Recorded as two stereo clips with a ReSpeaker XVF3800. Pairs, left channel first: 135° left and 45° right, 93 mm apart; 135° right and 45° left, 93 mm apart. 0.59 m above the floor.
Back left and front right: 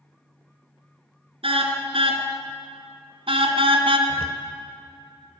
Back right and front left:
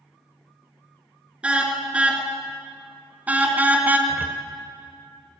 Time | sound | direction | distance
1.4 | a car horn | 35° right | 4 m
4.1 | a cupboard door | 25° right | 1.9 m